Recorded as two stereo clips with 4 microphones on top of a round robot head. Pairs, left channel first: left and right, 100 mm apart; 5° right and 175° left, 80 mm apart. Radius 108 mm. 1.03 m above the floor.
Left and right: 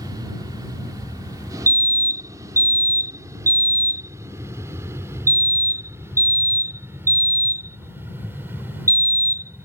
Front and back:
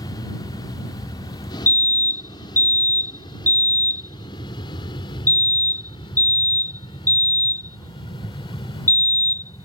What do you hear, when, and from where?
0.0 s an aircraft: 35° right; by 9.7 s 15° right
1.7 s a fire alarm: 50° right